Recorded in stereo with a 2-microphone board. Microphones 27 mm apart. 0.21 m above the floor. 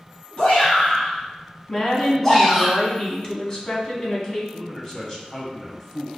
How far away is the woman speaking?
About 1.3 m.